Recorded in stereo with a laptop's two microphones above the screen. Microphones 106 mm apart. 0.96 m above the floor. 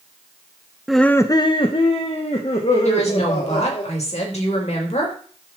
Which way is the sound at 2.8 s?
85° left.